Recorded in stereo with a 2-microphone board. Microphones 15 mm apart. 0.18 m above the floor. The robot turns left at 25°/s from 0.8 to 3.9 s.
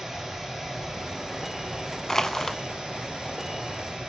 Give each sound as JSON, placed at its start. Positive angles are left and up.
{"t": 0.0, "sound": "running water", "azimuth_deg": -30, "distance_m": 3.5}
{"t": 2.1, "sound": "crushing", "side_deg": 35, "distance_m": 0.7}